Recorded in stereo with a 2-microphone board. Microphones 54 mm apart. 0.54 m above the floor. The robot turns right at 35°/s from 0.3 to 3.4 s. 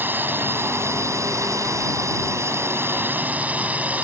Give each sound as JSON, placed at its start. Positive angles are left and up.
{"t": 0.0, "sound": "a drone", "azimuth_deg": -140}